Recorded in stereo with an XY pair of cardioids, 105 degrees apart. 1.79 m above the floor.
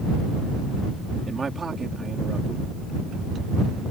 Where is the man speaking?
30° right.